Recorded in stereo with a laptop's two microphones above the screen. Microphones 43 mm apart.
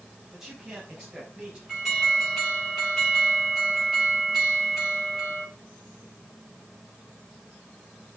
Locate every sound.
0.3 s a man speaking: 5° right (ahead or behind), 2.5 m; by 1.6 s 20° right (ahead or behind), 4.5 m
1.7 s an alarm: 5° right (ahead or behind), 6.5 m